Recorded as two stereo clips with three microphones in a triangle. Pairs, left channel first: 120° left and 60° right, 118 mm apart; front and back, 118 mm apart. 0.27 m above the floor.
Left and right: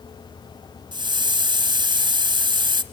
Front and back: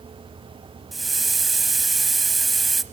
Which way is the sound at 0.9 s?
90° right.